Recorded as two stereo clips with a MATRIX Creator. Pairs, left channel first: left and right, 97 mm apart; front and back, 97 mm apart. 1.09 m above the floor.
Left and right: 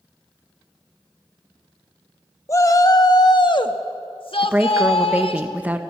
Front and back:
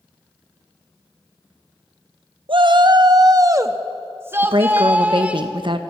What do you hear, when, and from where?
2.5 s a shout: 150° left, 1.3 m; by 5.4 s 105° left, 2 m
4.4 s a woman speaking: 160° right, 1.3 m